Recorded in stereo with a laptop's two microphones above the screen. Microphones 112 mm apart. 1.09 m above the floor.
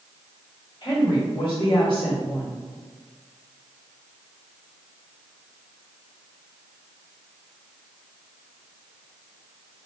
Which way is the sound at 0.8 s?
50° left (ahead or behind).